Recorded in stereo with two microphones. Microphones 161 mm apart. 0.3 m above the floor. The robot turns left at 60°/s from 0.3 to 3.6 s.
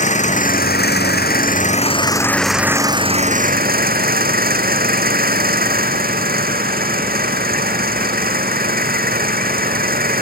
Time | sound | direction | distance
0.0 | an engine running | 130° left | ?